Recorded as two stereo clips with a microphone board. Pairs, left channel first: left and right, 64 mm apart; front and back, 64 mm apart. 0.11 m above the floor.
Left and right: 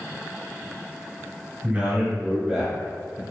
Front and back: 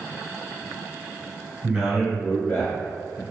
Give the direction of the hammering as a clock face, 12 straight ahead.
I don't hear hammering.